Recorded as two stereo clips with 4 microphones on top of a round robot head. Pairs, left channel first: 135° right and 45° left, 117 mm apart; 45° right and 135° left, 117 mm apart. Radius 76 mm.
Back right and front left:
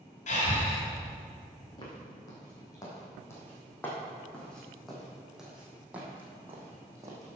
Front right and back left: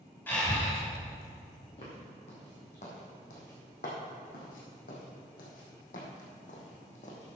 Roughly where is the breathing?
Behind right.